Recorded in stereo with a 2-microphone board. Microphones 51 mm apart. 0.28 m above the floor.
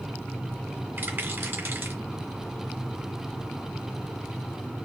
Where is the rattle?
40° right (ahead or behind), 2 m.